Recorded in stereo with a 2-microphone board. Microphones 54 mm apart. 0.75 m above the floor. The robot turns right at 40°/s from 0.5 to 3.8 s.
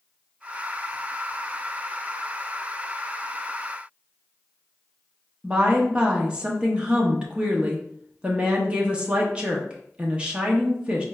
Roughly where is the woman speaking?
Centre.